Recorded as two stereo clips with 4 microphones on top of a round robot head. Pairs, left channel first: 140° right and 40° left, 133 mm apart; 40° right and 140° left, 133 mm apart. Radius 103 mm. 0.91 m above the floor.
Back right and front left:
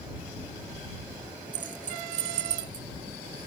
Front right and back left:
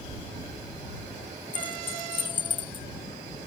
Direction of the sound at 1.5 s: 15° left.